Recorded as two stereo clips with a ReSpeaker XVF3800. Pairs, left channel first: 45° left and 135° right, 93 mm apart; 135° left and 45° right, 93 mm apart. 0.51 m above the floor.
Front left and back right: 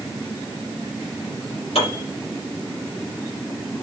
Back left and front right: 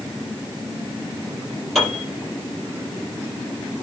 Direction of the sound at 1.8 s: 45° left.